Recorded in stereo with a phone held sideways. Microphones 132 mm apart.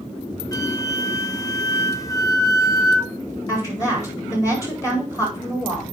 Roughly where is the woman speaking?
Left.